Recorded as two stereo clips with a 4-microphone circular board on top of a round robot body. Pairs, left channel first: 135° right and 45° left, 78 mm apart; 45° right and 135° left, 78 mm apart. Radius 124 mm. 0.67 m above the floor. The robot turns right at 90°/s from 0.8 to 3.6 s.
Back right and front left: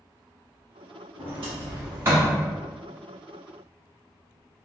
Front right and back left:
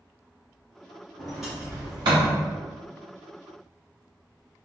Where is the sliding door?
25° left, 0.8 m; by 2.4 s 130° left, 0.8 m.